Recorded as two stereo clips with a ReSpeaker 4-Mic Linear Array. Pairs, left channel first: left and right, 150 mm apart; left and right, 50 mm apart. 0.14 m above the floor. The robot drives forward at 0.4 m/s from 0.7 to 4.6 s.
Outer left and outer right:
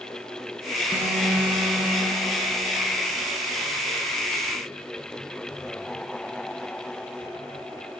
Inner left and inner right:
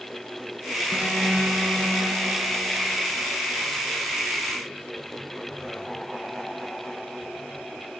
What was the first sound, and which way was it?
An alarm, 15° right (ahead or behind).